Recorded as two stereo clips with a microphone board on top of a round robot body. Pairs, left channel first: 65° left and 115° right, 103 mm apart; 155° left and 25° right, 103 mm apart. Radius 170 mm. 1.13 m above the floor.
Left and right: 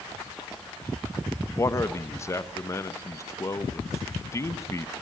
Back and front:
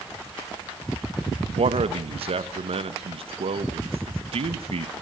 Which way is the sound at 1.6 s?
5° left.